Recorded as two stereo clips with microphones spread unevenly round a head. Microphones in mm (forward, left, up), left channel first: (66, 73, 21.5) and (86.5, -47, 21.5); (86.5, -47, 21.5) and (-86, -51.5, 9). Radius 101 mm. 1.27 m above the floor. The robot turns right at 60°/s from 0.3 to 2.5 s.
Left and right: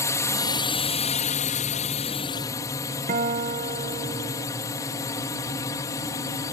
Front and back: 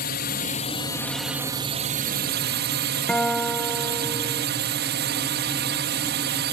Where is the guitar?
85° right.